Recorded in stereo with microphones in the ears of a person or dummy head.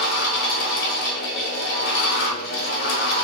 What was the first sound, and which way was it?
A fan, 50° left (ahead or behind).